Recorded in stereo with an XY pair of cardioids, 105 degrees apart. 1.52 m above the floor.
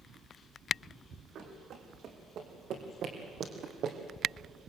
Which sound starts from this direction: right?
Running footsteps, at 1.4 s.